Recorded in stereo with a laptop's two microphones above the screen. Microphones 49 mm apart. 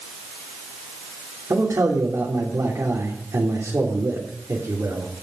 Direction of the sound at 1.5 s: 70° right (ahead or behind).